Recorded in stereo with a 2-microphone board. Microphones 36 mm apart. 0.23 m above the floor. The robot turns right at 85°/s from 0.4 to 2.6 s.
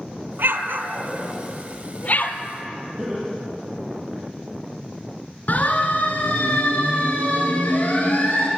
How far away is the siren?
About 3.5 m.